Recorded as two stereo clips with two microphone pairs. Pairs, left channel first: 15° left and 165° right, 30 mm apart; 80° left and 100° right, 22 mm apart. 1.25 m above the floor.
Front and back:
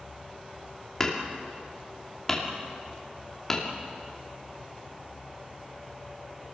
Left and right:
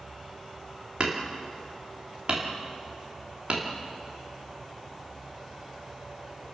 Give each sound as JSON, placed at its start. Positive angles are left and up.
{"t": 1.0, "sound": "hammering", "azimuth_deg": -60, "distance_m": 2.5}